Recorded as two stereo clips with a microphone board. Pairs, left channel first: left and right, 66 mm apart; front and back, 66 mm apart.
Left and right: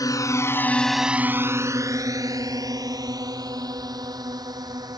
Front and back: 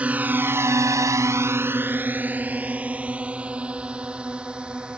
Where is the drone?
110° left; by 5.0 s 105° right.